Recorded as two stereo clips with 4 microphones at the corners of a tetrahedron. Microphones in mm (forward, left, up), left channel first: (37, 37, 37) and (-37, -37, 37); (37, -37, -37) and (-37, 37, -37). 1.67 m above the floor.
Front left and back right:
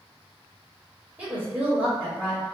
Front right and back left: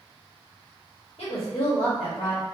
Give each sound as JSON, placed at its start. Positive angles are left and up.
{"t": 1.2, "sound": "a woman speaking", "azimuth_deg": -65, "distance_m": 0.9}